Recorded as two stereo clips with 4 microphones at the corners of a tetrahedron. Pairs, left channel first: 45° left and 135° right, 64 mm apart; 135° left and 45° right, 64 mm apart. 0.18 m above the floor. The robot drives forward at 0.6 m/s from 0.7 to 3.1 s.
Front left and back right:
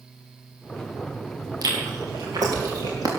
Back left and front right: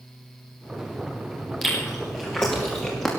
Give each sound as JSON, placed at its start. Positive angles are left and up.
{"t": 1.6, "sound": "chewing", "azimuth_deg": -140, "distance_m": 4.5}